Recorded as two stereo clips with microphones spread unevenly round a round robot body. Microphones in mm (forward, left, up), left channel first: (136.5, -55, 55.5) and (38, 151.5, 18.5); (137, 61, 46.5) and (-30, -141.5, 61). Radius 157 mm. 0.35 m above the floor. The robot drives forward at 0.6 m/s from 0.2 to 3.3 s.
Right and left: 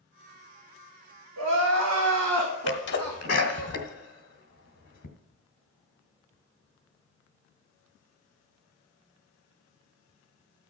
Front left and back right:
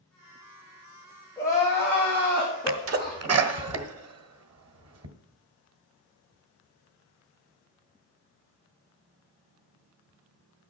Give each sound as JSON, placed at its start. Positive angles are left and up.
{"t": 1.4, "sound": "crying", "azimuth_deg": 130, "distance_m": 3.0}
{"t": 2.7, "sound": "a sneeze", "azimuth_deg": -100, "distance_m": 1.4}